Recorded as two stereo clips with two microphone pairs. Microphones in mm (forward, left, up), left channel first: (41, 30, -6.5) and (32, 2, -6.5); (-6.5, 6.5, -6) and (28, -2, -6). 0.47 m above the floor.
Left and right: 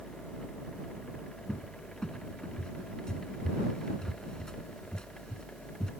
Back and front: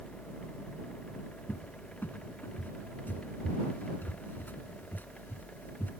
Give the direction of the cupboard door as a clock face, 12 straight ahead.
7 o'clock.